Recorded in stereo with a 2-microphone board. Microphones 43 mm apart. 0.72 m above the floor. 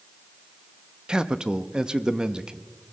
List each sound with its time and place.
1.1 s a man speaking: 20° right (ahead or behind), 0.7 m